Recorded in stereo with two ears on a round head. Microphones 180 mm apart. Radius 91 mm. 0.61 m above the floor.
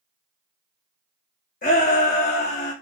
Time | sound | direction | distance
1.6 | a shout | 40° left (ahead or behind) | 0.9 m